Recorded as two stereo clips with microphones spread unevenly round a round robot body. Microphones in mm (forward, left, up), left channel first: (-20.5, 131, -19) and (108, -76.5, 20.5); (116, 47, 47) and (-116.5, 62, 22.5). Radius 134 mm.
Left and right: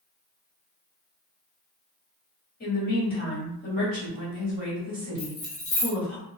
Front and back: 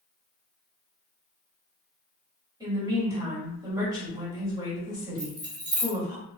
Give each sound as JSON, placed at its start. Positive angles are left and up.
{"t": 2.6, "sound": "a woman speaking", "azimuth_deg": 115, "distance_m": 1.8}
{"t": 5.2, "sound": "keys jangling", "azimuth_deg": 125, "distance_m": 1.5}